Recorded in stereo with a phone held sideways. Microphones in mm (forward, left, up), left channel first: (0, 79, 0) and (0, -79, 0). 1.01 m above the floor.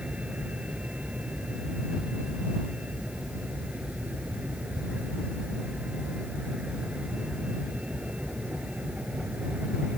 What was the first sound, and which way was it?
A vehicle, 5° right (ahead or behind).